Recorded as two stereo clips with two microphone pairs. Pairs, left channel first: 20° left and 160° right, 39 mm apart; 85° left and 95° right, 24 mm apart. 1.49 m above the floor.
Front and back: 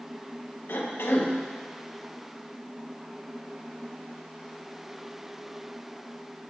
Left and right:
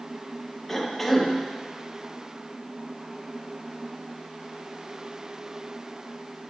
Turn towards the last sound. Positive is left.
turn(degrees=5)